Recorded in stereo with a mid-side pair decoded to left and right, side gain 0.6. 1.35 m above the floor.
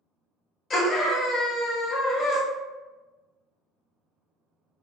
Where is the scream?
40° left, 1.3 m.